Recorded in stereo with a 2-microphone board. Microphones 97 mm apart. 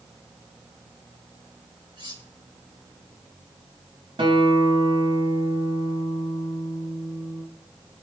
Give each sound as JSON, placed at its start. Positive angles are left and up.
{"t": 2.0, "sound": "cutlery clinking", "side_deg": -55, "distance_m": 5.0}
{"t": 4.2, "sound": "a guitar", "side_deg": -60, "distance_m": 4.0}